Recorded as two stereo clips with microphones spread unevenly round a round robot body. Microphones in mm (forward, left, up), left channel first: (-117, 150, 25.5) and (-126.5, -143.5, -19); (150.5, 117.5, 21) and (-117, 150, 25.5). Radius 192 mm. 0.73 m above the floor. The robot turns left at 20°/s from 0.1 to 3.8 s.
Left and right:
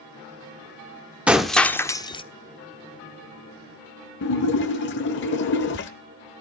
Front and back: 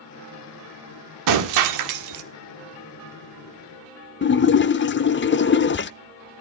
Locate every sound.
1.3 s breaking glass: 175° right, 1.1 m; by 2.2 s 165° left, 1.1 m
4.2 s a splash: 40° left, 0.6 m